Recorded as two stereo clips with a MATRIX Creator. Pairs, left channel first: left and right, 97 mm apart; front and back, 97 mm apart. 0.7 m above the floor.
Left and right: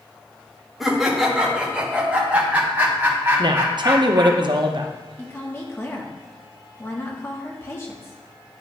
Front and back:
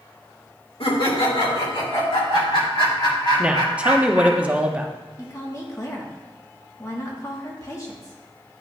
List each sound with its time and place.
0.8 s laughter: straight ahead, 1.8 m; by 4.4 s 25° right, 4 m
3.4 s a woman speaking: 105° right, 0.7 m
5.2 s a woman speaking: 40° left, 1.3 m